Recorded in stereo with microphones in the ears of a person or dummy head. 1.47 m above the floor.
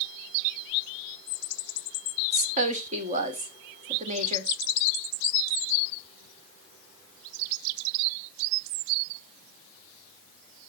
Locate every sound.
2.3 s a woman speaking: 40° right (ahead or behind), 1.3 m